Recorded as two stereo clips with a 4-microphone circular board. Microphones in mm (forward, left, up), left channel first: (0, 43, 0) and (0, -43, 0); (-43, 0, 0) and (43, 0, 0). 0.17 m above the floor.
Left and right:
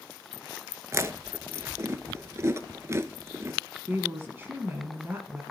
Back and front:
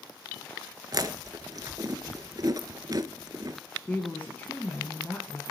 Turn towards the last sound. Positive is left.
turn(degrees=-125)